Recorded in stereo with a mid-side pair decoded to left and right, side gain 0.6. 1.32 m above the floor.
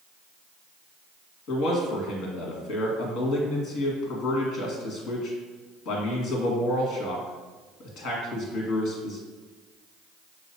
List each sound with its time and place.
1.5 s a man speaking: 65° left, 1.8 m